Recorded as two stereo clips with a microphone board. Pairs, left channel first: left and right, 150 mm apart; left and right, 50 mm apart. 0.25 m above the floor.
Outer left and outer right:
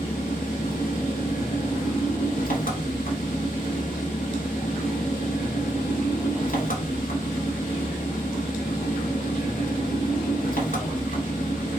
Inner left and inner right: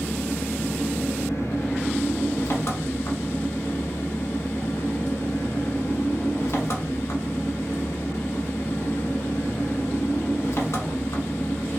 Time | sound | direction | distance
0.0 | an engine running | 70° left (ahead or behind) | 0.8 m